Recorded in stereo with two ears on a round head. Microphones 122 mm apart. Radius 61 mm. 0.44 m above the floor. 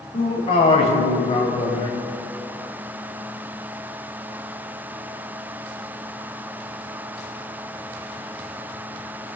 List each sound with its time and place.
0.1 s a man speaking: 40° left (ahead or behind), 2.5 m